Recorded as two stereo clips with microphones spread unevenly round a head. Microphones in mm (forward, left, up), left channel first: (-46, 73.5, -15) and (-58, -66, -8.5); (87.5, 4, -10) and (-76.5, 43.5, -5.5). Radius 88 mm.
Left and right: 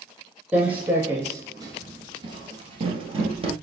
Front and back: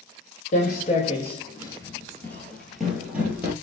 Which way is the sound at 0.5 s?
20° right.